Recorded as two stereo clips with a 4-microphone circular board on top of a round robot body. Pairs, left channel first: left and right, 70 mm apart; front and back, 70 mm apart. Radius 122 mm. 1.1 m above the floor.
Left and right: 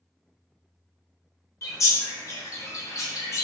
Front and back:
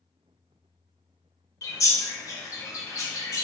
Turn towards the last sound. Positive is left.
turn(degrees=45)